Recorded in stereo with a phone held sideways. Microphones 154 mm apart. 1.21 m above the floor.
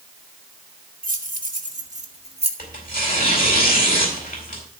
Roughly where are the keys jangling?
Right.